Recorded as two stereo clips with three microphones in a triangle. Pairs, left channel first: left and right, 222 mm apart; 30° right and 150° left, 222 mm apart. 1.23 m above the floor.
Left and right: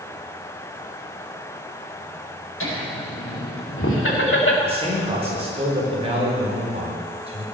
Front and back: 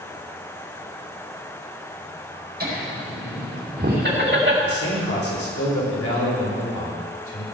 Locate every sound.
2.6 s laughter: 105° left, 4.5 m; by 4.5 s 120° left, 2.0 m
4.6 s a man speaking: 25° right, 4 m